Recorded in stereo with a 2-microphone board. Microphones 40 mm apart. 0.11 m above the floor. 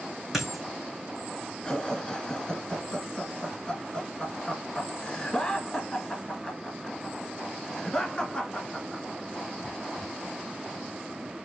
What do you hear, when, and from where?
0.3 s a dropped coin: 5° right (ahead or behind), 2.5 m
1.6 s laughter: 20° left (ahead or behind), 1.4 m